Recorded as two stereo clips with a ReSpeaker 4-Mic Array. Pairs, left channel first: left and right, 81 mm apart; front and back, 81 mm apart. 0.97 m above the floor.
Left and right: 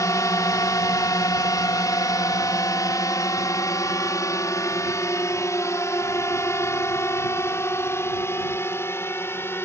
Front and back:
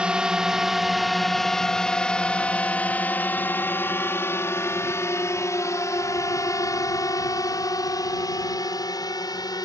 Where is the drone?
105° left; by 9.7 s 30° left.